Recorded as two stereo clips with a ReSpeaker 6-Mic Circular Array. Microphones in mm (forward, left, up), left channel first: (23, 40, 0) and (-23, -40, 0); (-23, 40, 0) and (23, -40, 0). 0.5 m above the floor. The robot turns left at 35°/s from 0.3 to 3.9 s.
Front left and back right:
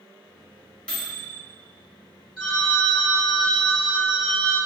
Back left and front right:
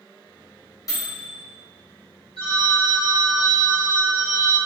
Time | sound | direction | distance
0.9 | a microwave | 130° left | 0.8 m
2.4 | a phone ringing | 25° right | 1.6 m